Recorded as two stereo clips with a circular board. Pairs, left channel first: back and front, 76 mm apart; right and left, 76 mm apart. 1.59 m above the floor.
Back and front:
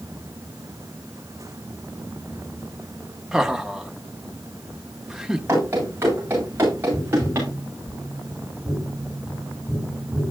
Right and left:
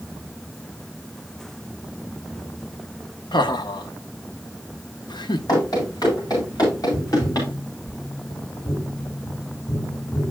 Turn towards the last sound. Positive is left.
turn(degrees=-40)